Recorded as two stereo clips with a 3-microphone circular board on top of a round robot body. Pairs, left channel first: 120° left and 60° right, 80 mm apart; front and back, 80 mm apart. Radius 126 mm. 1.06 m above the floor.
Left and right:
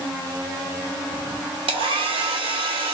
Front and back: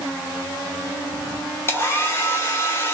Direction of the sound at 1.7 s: 60° right.